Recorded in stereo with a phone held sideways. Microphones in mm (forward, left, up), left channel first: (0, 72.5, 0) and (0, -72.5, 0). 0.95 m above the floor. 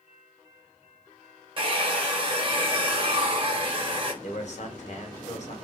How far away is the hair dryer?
About 1.1 m.